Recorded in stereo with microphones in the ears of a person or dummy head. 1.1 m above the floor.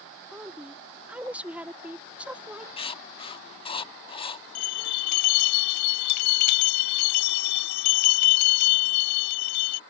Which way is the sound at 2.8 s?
30° left (ahead or behind).